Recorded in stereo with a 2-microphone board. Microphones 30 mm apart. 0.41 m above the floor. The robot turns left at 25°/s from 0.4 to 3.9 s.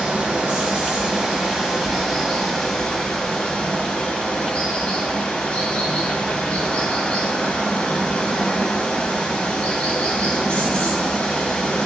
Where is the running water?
140° right, 1.0 m; by 11.9 s 135° left, 1.0 m.